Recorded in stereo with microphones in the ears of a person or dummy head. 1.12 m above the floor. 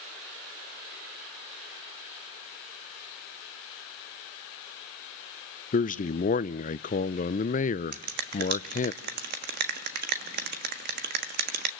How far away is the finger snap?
About 1.4 m.